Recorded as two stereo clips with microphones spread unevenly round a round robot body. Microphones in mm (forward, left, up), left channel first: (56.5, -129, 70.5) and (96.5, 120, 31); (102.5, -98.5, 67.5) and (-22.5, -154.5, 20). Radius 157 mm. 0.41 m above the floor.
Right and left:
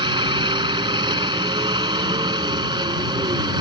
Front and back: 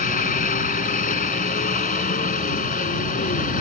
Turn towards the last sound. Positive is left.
turn(degrees=10)